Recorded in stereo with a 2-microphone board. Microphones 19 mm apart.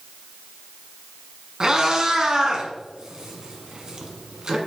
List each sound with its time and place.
1.6 s a cat meowing: 40° right (ahead or behind), 1.2 m